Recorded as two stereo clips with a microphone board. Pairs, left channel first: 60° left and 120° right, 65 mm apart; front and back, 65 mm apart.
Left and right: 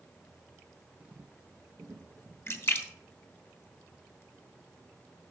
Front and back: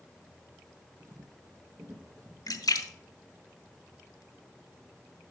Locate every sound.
1.0 s footsteps: 170° left, 1.2 m; by 2.4 s 160° right, 2.5 m
2.5 s a splash: 10° left, 1.0 m